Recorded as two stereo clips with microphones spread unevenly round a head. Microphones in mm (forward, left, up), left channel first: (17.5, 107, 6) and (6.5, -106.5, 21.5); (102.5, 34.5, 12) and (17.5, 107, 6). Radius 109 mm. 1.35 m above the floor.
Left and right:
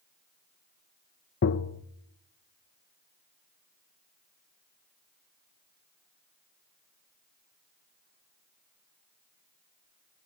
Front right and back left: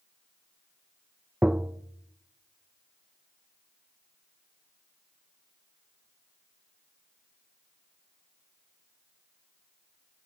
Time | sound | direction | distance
1.4 | tapping | 60° left | 0.7 m